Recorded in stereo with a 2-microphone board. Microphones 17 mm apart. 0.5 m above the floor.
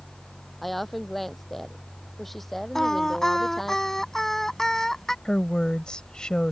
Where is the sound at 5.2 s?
55° left (ahead or behind).